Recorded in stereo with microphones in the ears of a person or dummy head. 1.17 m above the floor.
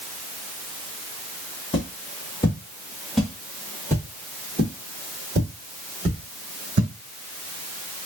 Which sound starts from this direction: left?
Footsteps, at 1.7 s.